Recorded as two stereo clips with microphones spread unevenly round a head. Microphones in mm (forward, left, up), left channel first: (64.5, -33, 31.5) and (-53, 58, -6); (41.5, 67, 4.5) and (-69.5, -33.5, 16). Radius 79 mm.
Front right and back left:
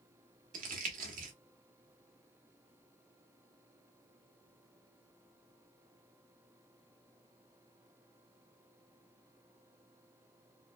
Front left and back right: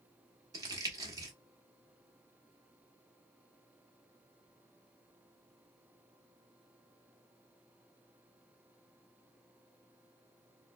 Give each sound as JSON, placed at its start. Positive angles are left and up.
{"t": 0.5, "sound": "crumpling", "azimuth_deg": 175, "distance_m": 1.1}